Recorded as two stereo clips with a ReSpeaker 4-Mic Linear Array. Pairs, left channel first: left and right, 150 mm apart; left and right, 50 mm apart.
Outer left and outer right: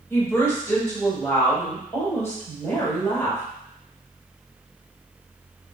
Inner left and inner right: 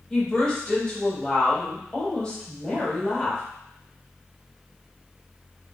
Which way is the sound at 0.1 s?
20° left (ahead or behind).